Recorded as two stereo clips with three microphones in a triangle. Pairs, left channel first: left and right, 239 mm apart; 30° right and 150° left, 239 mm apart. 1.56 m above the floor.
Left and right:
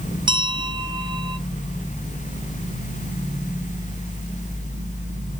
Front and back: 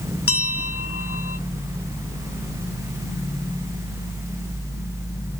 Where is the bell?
20° right, 0.9 m.